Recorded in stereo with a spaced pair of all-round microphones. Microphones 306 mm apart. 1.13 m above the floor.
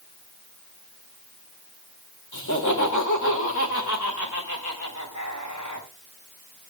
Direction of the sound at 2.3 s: 80° left.